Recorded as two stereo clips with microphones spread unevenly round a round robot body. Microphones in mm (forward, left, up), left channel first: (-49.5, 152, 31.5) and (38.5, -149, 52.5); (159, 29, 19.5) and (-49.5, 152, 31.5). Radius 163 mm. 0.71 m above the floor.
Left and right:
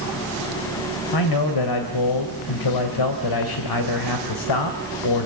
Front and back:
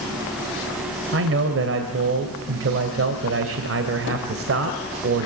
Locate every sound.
1.1 s a man speaking: 120° left, 3 m